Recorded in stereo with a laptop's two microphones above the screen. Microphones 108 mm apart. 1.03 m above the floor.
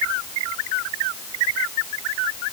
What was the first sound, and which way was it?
Only background noise.